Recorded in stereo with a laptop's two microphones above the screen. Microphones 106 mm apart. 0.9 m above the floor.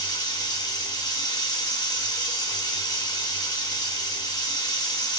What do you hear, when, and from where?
0.0 s running water: 40° left (ahead or behind), 0.8 m